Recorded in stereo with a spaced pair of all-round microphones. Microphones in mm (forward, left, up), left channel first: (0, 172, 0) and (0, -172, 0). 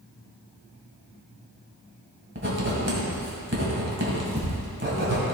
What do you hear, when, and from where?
2.4 s writing: 30° right (ahead or behind), 2 m